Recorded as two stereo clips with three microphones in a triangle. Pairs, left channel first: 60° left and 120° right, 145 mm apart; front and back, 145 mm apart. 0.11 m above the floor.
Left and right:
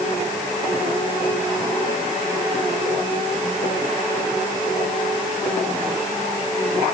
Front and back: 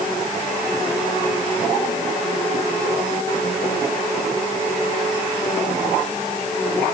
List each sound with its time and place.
Only background noise.